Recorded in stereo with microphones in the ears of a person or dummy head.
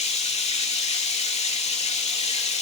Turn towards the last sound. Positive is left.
turn(degrees=30)  # may be behind; listen again after turning